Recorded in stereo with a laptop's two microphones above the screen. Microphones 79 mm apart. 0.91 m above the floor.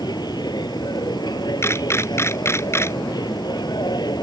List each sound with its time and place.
0.0 s a machine running: 65° left (ahead or behind)
1.6 s a camera shutter: 35° left (ahead or behind)